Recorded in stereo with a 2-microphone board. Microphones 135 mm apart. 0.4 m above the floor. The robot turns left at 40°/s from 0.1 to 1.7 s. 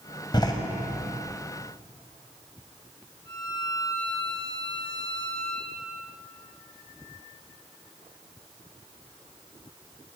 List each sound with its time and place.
0.3 s a door slam: 35° left (ahead or behind), 1.9 m; by 0.5 s 25° left (ahead or behind), 1.9 m
3.2 s a violin: 15° left (ahead or behind), 7 m